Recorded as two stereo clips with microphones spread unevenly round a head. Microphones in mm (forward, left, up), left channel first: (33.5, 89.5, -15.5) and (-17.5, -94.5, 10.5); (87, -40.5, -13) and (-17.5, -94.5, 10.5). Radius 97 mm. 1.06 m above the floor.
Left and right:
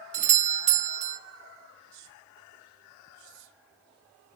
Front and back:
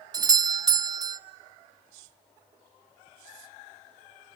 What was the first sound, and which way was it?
A doorbell, 110° right.